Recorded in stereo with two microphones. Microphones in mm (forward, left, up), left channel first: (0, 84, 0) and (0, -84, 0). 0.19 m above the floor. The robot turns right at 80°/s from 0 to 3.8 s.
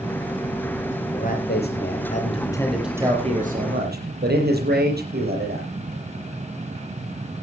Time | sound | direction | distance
1.1 | a man speaking | 50° left | 6 m